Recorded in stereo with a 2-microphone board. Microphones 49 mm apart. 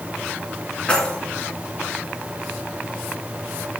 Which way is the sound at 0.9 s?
20° left (ahead or behind).